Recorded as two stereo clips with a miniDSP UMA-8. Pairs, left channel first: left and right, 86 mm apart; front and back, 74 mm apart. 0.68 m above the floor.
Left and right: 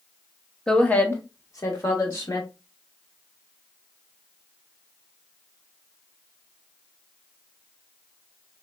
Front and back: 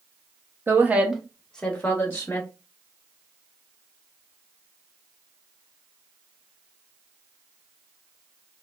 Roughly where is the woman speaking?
Behind.